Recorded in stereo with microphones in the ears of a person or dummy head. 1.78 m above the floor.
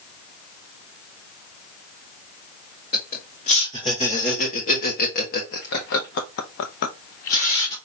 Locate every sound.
2.9 s laughter: 35° left (ahead or behind), 2.5 m; by 7.8 s 30° left (ahead or behind), 0.9 m